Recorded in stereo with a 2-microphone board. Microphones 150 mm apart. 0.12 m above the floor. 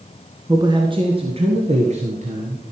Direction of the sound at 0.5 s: 25° right (ahead or behind).